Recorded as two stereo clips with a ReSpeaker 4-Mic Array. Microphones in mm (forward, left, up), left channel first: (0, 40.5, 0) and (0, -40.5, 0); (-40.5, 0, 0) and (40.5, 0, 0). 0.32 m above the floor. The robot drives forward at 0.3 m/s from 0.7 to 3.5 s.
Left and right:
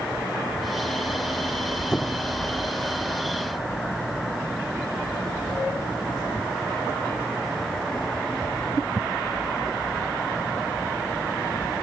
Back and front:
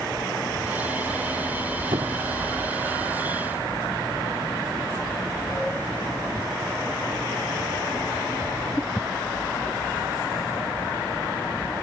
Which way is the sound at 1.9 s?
10° left.